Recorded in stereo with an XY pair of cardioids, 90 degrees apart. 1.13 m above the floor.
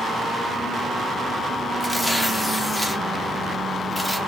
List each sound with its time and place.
1.8 s tearing paper: 5° left, 0.7 m